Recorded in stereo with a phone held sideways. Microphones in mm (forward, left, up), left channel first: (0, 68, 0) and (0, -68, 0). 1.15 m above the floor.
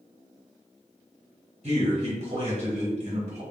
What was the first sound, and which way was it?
A man speaking, 55° right (ahead or behind).